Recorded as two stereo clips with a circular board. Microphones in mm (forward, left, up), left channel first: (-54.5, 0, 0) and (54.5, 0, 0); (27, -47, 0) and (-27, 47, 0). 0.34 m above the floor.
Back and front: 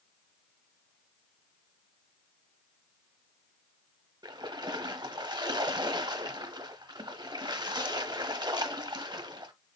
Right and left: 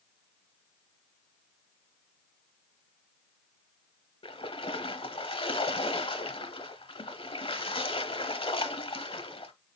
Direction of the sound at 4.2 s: 40° right.